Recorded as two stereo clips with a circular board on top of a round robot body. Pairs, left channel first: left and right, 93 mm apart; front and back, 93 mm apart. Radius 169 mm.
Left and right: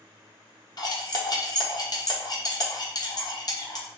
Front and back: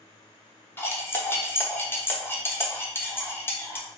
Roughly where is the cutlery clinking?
Ahead left.